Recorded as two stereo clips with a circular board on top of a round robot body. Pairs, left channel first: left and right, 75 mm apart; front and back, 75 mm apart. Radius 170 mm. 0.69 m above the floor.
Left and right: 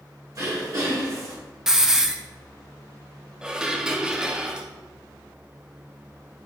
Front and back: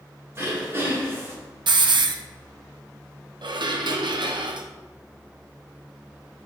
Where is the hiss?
175° right, 0.7 m.